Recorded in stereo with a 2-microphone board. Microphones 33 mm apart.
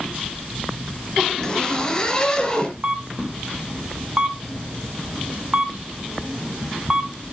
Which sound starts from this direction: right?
A camera shutter, at 2.8 s.